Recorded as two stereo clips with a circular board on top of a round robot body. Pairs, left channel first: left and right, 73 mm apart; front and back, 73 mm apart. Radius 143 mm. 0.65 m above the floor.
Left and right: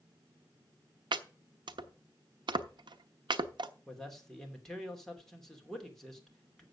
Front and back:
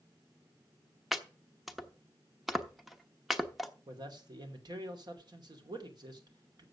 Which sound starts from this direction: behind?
A man speaking, at 3.9 s.